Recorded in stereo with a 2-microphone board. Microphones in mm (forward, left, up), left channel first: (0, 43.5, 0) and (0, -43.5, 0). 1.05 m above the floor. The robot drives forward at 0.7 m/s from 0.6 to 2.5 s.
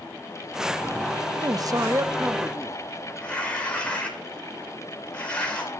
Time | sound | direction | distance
1.4 | a man speaking | 55° right (ahead or behind) | 0.7 m
3.1 | tearing paper | 15° left (ahead or behind) | 4 m